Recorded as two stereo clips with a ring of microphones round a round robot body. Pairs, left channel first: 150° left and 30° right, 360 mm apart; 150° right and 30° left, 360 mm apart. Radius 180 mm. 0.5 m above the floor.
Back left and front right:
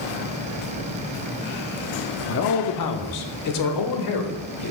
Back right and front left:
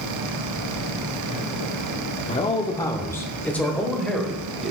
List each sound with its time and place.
2.3 s a man speaking: 150° left, 0.7 m; by 4.7 s 120° left, 1.8 m